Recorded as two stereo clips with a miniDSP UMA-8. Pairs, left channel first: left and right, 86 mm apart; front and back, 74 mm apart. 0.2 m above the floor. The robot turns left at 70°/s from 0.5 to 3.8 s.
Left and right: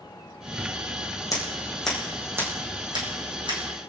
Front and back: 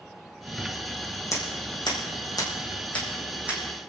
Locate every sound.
1.3 s scissors: 45° left, 6 m; by 3.6 s 115° right, 6 m